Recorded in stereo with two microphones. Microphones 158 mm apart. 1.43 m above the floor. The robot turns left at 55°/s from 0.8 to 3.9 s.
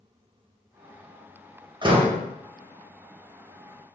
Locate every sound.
1.8 s a door slam: 30° right (ahead or behind), 0.7 m; by 2.2 s 40° right (ahead or behind), 0.7 m